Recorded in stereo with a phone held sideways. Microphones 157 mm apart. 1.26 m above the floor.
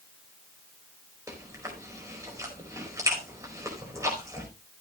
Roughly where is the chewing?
Centre.